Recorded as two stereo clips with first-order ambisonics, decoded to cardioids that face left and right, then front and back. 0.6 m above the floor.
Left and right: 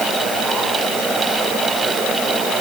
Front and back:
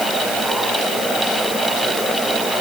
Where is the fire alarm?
No fire alarm in this recording.